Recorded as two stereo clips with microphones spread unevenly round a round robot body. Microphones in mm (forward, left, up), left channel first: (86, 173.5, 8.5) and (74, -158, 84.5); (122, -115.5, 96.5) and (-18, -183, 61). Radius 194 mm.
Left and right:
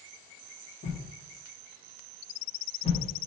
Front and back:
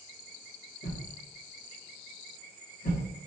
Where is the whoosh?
35° left, 1.4 m.